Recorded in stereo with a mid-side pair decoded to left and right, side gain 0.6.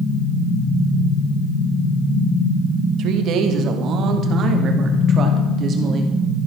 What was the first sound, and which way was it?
A woman speaking, 60° right.